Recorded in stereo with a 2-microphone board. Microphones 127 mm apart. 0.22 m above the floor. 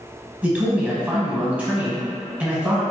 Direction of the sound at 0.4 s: 10° right (ahead or behind).